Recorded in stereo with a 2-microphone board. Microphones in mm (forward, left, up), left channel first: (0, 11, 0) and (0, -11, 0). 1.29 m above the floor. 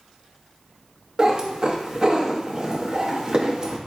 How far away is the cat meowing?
About 0.7 m.